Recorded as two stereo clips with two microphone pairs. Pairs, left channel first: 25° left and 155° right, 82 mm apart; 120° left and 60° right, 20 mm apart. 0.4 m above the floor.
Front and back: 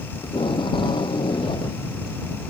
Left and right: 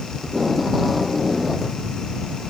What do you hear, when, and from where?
0.2 s tape being pulled: 30° left